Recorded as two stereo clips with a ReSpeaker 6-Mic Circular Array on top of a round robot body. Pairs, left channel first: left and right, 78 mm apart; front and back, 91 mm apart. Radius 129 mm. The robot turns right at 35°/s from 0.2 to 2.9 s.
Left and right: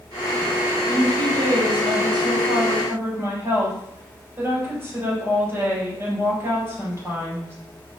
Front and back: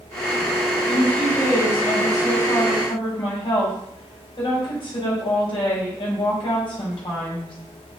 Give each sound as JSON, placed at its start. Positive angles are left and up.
{"t": 0.8, "sound": "a woman speaking", "azimuth_deg": -105, "distance_m": 4.0}